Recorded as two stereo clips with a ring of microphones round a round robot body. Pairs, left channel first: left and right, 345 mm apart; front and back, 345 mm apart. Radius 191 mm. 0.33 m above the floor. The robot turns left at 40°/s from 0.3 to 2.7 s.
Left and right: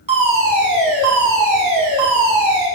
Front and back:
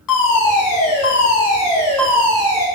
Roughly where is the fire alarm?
Ahead.